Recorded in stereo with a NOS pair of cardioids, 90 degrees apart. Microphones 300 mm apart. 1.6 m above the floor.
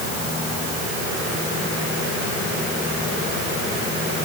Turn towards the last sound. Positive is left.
No sound to turn to.